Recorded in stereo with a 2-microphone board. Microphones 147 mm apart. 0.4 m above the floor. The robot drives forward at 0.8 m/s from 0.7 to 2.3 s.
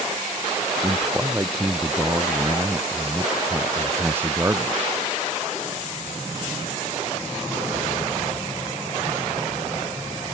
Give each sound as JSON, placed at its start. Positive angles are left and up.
{"t": 0.8, "sound": "a man speaking", "side_deg": -15}